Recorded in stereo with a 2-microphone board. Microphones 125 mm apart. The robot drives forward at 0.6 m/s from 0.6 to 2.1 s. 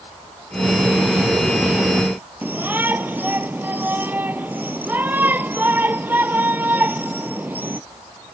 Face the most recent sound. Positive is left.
turn(degrees=-15)  # may be behind; listen again after turning